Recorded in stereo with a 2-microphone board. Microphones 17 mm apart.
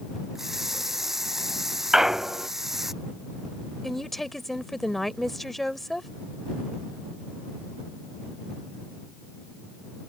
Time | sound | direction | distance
0.3 | a running tap | 15° right (ahead or behind) | ?
1.9 | a clunk | 35° right (ahead or behind) | ?
3.8 | a woman speaking | 15° left (ahead or behind) | ?